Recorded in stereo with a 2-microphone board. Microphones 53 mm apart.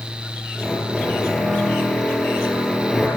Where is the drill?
Centre (ahead or behind), 8 m.